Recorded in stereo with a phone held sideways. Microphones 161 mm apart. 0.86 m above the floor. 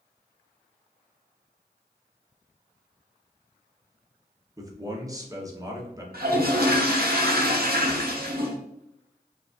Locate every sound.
4.6 s a man speaking: 20° right (ahead or behind), 0.8 m
6.1 s a toilet flushing: 75° right (ahead or behind), 0.8 m